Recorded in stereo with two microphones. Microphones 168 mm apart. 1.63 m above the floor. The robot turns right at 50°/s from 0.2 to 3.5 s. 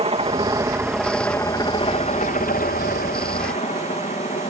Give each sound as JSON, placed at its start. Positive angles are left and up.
{"t": 0.0, "sound": "a helicopter", "side_deg": -35}